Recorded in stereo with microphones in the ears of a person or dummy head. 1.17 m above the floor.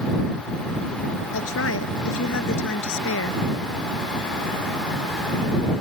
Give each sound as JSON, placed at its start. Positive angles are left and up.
{"t": 1.3, "sound": "a woman speaking", "side_deg": 80}